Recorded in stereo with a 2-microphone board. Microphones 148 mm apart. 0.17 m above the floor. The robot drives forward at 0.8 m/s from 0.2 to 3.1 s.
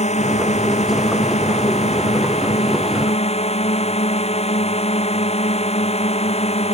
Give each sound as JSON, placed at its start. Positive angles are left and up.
{"t": 0.0, "sound": "a drone", "side_deg": 50}